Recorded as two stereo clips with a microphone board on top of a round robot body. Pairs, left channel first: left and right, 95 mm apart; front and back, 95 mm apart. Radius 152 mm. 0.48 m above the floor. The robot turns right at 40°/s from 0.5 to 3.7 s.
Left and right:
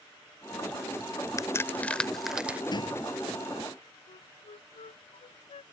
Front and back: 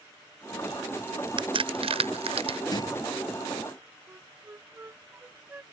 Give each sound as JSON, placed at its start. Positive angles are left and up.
{"t": 1.4, "sound": "a crack", "azimuth_deg": 145}
{"t": 2.7, "sound": "a door slam", "azimuth_deg": 45}
{"t": 4.1, "sound": "a flute", "azimuth_deg": 110}